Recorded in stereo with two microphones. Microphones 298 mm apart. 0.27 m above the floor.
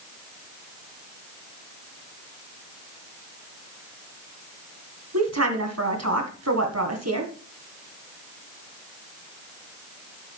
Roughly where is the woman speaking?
Right.